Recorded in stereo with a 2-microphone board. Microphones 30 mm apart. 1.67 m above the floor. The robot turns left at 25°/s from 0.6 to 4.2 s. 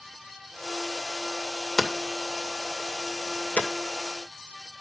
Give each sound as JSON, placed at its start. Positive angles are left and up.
{"t": 1.8, "sound": "hammering", "side_deg": 15, "distance_m": 2.0}